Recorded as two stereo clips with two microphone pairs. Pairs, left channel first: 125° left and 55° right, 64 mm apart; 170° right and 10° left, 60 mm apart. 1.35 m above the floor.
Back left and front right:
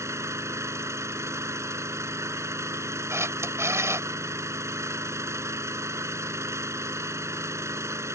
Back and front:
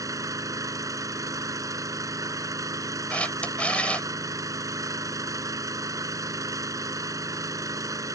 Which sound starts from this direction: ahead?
An engine running, at 0.0 s.